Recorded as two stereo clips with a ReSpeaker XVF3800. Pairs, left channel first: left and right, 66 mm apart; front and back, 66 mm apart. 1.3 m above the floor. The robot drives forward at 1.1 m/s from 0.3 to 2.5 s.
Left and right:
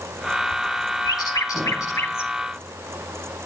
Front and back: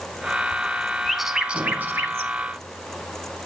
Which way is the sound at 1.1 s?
85° left.